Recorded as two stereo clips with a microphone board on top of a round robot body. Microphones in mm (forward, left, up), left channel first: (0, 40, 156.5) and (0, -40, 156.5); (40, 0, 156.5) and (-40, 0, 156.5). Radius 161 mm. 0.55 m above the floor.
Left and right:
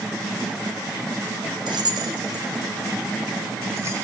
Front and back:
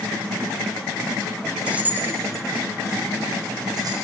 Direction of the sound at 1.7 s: 105° right.